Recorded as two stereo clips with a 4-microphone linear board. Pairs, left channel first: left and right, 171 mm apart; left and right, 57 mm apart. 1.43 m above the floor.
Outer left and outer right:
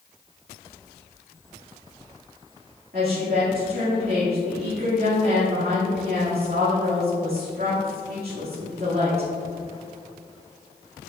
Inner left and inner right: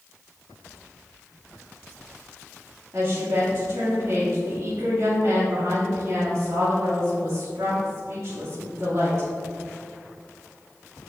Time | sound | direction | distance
2.9 | a woman speaking | 65° right (ahead or behind) | 2 m